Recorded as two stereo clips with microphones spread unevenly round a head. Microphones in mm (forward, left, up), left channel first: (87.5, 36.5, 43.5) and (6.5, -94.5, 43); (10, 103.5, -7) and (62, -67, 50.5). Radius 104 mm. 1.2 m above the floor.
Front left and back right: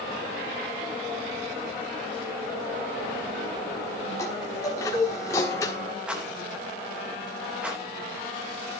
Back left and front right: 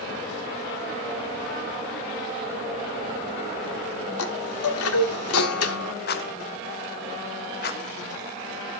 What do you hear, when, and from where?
4.2 s a chime: 135° left, 1.4 m
6.1 s a rattle: 155° left, 1.0 m